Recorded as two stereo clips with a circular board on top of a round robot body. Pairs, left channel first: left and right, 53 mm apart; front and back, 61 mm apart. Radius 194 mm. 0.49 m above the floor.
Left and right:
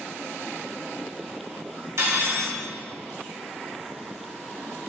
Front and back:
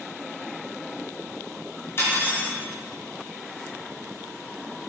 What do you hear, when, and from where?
2.0 s cutlery clinking: 55° right, 1.0 m